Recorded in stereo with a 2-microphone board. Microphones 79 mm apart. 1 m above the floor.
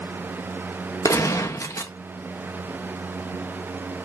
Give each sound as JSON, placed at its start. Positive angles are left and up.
{"t": 1.1, "sound": "a gunshot", "side_deg": 40, "distance_m": 1.5}